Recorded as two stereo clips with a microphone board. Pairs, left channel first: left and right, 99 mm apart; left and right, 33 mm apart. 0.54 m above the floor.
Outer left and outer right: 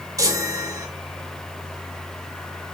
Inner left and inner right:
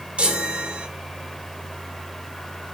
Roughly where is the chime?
Right.